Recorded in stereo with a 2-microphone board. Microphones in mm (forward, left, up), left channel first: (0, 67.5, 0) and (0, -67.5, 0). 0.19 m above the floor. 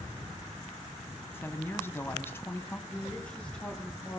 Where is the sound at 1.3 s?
20° left (ahead or behind), 1.0 m.